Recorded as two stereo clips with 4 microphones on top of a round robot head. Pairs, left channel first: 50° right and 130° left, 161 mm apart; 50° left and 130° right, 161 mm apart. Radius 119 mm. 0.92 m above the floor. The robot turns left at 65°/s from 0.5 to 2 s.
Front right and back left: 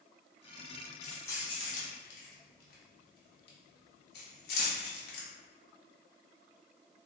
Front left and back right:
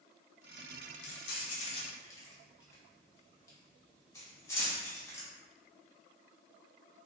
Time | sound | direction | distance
1.0 | keys jangling | 40° left | 0.7 m